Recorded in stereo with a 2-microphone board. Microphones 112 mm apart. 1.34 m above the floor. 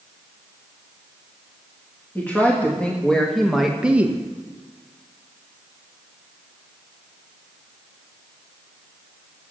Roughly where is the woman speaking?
Centre.